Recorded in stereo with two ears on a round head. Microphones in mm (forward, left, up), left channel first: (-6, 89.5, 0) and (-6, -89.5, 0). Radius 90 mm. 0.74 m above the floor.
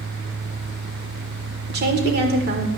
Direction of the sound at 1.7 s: 55° right (ahead or behind).